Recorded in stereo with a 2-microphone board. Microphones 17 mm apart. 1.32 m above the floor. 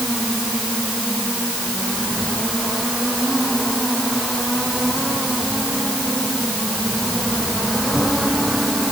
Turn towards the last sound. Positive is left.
No sound to turn to.